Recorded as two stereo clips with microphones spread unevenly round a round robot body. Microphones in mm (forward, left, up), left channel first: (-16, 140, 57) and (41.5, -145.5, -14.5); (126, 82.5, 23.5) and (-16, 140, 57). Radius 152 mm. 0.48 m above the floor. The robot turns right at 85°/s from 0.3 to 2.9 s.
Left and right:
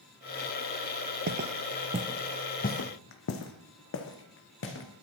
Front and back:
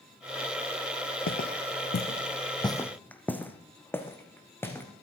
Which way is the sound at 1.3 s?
15° right.